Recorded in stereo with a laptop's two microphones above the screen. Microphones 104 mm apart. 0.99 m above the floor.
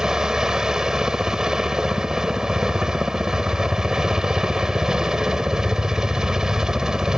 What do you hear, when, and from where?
0.0 s a helicopter: 5° right (ahead or behind)